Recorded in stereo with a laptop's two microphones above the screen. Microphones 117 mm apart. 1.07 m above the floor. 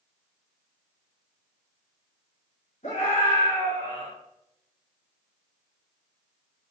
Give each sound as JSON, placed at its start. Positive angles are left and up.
{"t": 2.8, "sound": "a scream", "side_deg": 75, "distance_m": 4.0}